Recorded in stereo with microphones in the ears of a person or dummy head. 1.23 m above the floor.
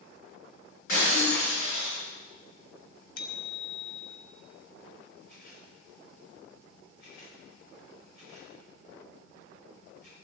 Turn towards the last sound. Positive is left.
turn(degrees=60)  # may be behind; listen again after turning